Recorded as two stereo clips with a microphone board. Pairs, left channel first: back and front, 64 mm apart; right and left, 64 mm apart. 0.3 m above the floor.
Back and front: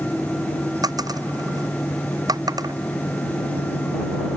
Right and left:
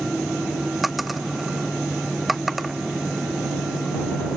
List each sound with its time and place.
0.8 s a dropped coin: straight ahead